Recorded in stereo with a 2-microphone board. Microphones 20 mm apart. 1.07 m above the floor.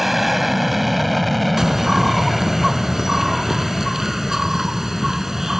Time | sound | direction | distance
0.0 | an aircraft | 5° right (ahead or behind) | ?
1.6 | a bird | 25° right (ahead or behind) | ?